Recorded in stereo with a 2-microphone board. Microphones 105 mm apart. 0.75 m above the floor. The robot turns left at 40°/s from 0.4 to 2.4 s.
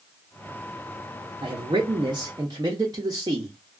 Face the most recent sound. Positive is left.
turn(degrees=-120)